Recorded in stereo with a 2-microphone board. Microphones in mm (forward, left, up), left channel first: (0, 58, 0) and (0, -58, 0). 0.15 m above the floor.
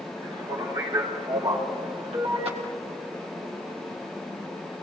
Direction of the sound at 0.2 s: 45° right (ahead or behind).